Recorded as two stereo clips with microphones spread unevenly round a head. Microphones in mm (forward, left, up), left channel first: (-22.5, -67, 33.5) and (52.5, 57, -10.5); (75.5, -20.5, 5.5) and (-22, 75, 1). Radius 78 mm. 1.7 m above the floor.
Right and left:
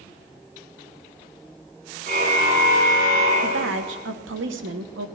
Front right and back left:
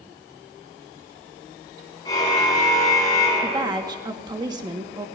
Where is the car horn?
20° left, 9.5 m; by 4.0 s 25° left, 8.5 m.